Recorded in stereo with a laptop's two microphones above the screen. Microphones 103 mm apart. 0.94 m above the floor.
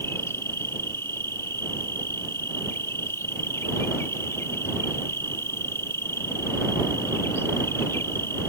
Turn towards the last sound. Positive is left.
turn(degrees=25)  # may be behind; listen again after turning